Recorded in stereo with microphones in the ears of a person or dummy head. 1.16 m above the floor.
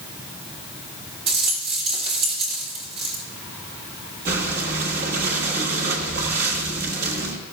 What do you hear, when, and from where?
1.3 s a rattle: 30° right (ahead or behind), 1.6 m
4.2 s breathing: 55° right (ahead or behind), 1.6 m